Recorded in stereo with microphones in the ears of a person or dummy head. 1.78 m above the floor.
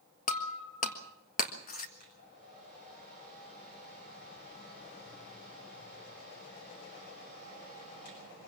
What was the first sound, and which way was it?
Breaking glass, 40° left (ahead or behind).